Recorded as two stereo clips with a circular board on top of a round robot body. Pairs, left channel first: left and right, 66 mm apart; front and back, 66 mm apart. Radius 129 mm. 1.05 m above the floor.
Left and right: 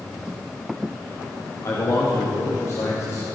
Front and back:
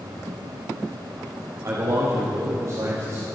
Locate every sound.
1.6 s a man speaking: 135° left, 2 m